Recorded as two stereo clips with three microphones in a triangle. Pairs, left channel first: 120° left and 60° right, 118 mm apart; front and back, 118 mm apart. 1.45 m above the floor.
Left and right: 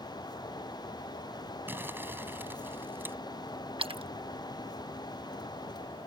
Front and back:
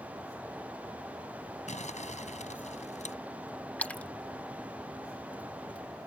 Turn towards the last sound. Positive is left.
turn(degrees=-75)